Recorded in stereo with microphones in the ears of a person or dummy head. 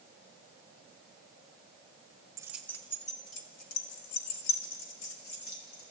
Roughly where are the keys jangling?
Centre.